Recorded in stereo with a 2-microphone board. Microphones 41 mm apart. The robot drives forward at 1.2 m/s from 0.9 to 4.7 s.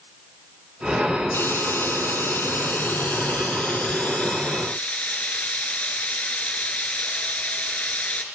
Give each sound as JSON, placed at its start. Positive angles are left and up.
{"t": 1.3, "sound": "frying", "side_deg": 65, "distance_m": 3.0}